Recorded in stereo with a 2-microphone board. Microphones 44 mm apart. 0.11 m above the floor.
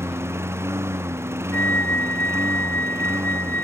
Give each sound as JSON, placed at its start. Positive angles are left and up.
{"t": 0.0, "sound": "a lawn mower", "side_deg": -85}
{"t": 1.5, "sound": "a flute", "side_deg": 45}